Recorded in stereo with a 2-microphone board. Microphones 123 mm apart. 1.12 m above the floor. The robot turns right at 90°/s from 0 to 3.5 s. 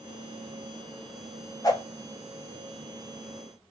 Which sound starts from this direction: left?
A whoosh, at 1.6 s.